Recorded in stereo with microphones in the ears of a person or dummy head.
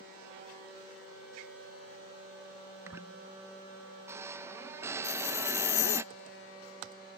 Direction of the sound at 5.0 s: 65° left (ahead or behind).